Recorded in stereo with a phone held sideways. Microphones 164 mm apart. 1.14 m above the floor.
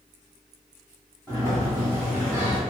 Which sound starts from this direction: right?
A sliding door, at 1.3 s.